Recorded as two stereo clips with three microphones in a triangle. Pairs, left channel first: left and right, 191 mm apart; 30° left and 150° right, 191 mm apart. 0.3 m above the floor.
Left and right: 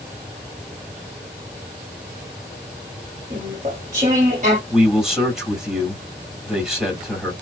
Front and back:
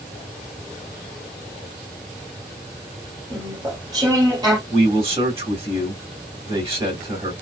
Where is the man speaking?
175° right, 1.8 m.